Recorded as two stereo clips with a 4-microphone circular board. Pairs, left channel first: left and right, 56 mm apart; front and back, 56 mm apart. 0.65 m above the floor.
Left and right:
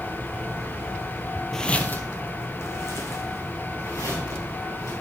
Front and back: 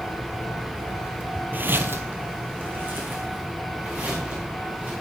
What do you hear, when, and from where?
1.5 s footsteps: 170° left, 0.7 m; by 4.9 s 120° left, 5 m